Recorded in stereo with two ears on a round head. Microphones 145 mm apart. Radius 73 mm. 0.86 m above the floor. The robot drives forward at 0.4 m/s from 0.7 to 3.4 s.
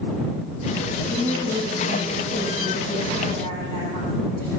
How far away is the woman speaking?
About 7 m.